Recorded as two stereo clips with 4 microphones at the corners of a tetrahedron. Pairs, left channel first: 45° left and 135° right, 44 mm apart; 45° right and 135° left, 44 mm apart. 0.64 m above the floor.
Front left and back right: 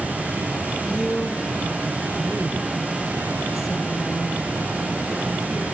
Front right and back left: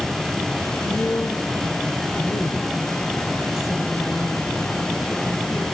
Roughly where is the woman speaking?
Ahead right.